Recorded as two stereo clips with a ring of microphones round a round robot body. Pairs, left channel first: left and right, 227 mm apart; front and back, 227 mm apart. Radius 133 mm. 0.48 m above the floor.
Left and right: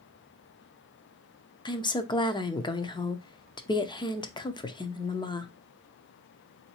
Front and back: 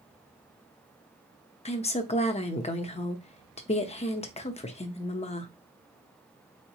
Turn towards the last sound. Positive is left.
turn(degrees=35)